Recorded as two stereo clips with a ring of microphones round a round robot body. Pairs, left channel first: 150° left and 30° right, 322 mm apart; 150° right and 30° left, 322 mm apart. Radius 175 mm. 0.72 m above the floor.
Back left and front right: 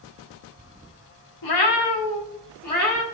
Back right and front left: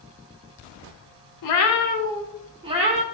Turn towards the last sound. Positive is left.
turn(degrees=95)